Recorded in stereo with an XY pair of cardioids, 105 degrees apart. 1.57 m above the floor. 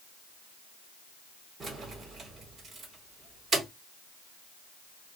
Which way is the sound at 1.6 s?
45° right.